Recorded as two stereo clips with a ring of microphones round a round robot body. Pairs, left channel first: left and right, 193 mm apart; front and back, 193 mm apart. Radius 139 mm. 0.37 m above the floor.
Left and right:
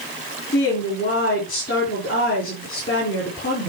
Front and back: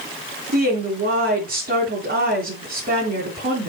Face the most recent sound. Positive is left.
turn(degrees=145)